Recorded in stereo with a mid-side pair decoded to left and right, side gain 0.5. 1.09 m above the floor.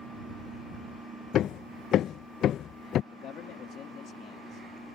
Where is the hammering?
60° left.